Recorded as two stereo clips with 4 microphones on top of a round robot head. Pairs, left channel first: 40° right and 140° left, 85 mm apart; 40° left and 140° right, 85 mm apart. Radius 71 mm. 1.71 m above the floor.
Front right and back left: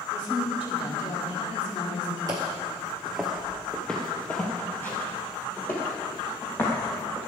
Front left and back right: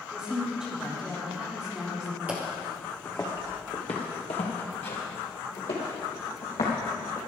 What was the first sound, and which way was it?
A woman speaking, 55° right.